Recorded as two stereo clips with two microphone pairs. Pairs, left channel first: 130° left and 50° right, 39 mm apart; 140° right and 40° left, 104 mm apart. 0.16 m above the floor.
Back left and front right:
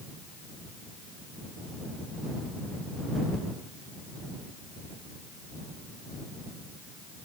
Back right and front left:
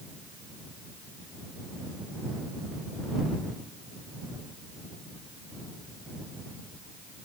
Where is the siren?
I don't hear a siren.